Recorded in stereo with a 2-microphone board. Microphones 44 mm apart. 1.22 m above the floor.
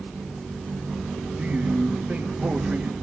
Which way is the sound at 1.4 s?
30° right (ahead or behind).